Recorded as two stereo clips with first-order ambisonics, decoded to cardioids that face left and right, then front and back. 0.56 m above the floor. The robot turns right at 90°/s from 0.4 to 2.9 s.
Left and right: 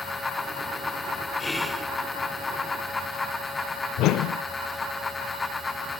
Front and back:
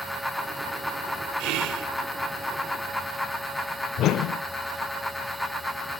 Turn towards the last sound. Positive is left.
turn(degrees=50)